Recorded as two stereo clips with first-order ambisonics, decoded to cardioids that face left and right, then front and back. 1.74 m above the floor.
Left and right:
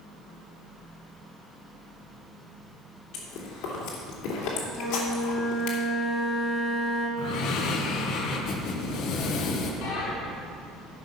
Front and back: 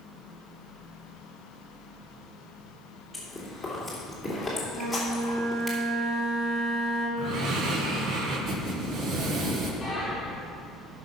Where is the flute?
160° left, 5 m.